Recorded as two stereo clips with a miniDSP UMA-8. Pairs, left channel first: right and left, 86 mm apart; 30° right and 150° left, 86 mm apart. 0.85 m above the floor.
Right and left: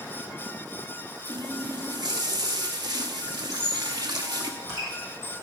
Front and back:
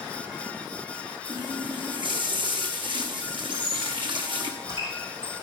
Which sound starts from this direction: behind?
A squeak, at 3.5 s.